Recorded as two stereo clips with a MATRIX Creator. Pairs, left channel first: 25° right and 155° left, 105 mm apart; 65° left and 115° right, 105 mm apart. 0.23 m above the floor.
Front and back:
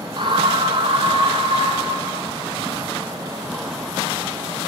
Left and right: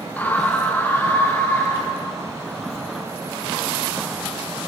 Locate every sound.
0.2 s a scream: 140° left, 1.5 m